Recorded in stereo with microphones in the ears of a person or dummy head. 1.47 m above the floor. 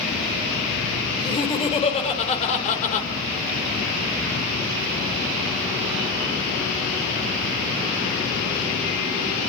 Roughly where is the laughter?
Left.